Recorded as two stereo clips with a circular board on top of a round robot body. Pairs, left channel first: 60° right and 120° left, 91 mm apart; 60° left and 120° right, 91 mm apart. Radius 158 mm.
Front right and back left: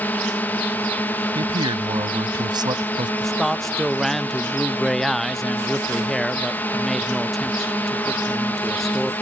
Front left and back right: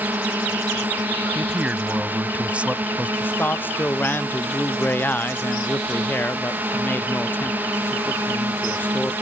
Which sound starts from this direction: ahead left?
A man speaking, at 3.2 s.